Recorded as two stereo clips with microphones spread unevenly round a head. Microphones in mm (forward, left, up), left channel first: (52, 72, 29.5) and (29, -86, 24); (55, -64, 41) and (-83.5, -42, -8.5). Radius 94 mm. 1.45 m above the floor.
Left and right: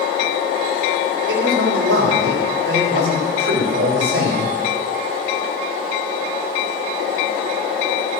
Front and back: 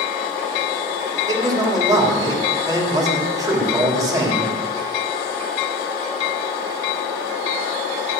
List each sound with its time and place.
1.3 s a man speaking: 120° right, 3.5 m